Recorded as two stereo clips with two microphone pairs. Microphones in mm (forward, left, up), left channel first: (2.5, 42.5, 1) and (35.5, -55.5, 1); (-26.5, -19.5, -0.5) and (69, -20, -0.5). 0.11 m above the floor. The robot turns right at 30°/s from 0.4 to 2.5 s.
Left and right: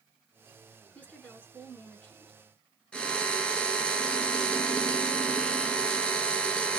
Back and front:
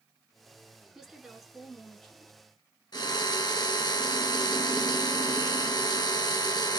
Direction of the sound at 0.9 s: 70° left.